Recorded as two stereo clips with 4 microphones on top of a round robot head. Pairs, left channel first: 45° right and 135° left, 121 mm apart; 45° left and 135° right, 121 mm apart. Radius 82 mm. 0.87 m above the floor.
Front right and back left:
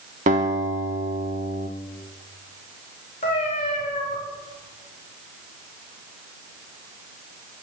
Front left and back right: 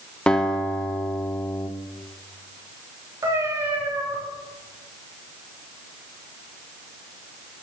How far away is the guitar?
About 2.0 m.